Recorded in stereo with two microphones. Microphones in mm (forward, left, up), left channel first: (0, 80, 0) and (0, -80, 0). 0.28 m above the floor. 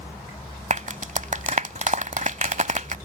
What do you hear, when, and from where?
0.7 s a clap: 50° right (ahead or behind)